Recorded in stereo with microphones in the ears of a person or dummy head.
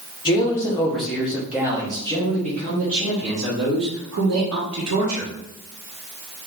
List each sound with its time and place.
0.2 s a man speaking: 25° left (ahead or behind), 1.2 m; by 5.3 s 65° right (ahead or behind), 2.5 m